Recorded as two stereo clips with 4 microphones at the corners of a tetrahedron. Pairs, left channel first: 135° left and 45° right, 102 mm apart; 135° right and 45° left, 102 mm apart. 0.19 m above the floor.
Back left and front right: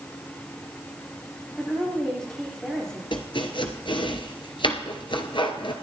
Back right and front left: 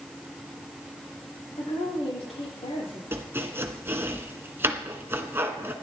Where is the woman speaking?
140° right, 9.5 m.